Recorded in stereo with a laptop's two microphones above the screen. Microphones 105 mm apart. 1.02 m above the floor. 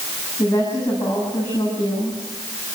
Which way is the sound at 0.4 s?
20° left (ahead or behind).